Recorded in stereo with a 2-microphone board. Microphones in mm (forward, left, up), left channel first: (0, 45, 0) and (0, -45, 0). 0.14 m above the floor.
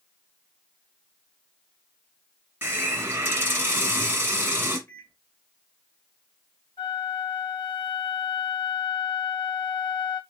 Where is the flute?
75° left (ahead or behind), 1.7 m.